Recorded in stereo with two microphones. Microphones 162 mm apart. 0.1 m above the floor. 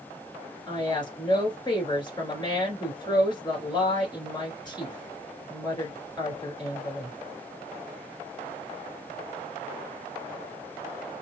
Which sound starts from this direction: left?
A woman speaking, at 0.7 s.